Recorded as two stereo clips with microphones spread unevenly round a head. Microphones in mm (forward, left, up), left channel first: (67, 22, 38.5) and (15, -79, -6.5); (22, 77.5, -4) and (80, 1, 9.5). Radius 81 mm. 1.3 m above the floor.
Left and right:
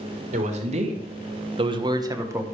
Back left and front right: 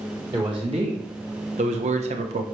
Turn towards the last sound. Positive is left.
turn(degrees=-55)